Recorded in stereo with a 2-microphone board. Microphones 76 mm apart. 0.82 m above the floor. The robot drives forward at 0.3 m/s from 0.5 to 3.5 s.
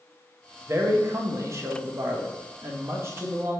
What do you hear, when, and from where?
0.7 s a man speaking: 35° right (ahead or behind), 1.0 m; by 3.6 s 30° right (ahead or behind), 1.2 m